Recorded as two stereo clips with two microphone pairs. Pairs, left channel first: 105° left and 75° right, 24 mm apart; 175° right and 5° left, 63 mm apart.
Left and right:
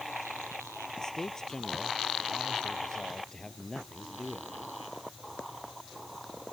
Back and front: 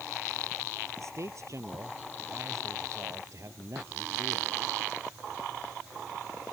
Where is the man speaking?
45° left; by 4.8 s 40° left.